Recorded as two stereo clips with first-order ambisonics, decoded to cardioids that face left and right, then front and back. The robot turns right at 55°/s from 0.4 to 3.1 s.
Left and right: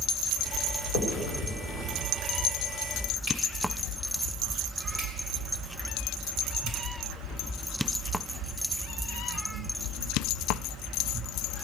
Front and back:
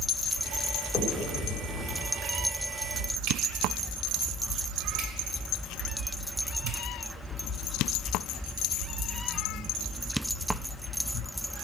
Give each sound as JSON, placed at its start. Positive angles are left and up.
{"t": 0.9, "sound": "a finger snap", "azimuth_deg": 85, "distance_m": 3.0}